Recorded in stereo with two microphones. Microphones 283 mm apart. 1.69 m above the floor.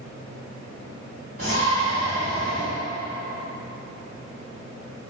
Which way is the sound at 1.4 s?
50° right (ahead or behind).